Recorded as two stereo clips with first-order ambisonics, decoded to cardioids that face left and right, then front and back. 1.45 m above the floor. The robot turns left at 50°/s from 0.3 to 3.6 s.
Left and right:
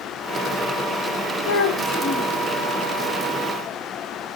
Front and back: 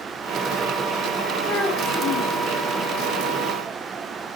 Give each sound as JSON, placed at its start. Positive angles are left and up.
{"t": 1.4, "sound": "a child speaking", "azimuth_deg": 75, "distance_m": 2.5}